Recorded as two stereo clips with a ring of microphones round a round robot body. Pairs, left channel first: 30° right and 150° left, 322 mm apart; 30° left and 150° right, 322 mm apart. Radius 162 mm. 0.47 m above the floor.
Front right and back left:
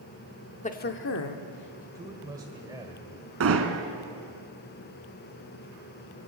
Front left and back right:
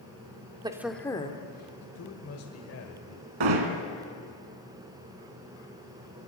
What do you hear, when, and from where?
0.6 s a woman speaking: 85° right, 1.1 m; by 1.9 s 20° right, 1.7 m
1.9 s a man speaking: 70° left, 1.6 m
3.4 s hammering: 160° right, 2 m